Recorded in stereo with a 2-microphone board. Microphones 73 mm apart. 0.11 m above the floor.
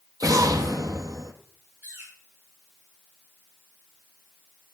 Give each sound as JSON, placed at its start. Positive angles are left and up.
{"t": 0.2, "sound": "an explosion", "side_deg": -55, "distance_m": 2.5}
{"t": 1.8, "sound": "a bird", "side_deg": -25, "distance_m": 8.0}